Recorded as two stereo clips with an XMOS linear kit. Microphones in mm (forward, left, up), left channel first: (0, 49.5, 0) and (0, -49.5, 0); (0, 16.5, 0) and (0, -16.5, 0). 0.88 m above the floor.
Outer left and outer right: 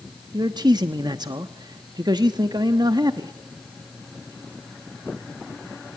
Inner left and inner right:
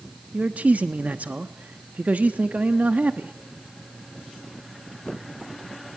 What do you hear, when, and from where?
0.3 s a man speaking: 45° right (ahead or behind), 1.0 m